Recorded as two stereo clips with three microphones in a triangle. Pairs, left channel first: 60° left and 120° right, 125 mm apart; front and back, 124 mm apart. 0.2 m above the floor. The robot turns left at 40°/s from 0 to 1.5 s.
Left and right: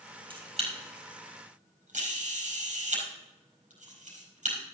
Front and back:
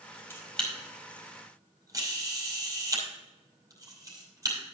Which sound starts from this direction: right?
A camera shutter, at 0.3 s.